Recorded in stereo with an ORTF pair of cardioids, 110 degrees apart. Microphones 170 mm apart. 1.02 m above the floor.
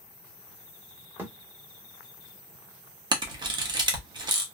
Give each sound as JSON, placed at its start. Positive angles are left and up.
{"t": 1.2, "sound": "a thud", "azimuth_deg": -15, "distance_m": 1.3}
{"t": 3.1, "sound": "a camera shutter", "azimuth_deg": -25, "distance_m": 1.1}